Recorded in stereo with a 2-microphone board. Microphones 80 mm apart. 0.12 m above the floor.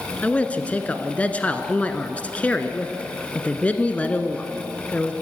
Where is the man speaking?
20° left (ahead or behind), 1.2 m.